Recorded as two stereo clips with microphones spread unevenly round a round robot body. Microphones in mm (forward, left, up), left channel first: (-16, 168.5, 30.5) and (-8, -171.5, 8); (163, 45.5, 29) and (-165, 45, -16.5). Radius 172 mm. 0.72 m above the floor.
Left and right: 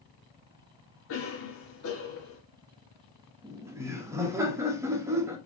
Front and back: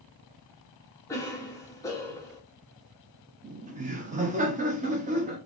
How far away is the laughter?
About 0.6 m.